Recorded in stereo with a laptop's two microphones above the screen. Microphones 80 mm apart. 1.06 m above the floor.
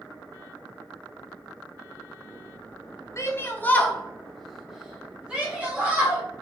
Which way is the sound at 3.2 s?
35° left (ahead or behind).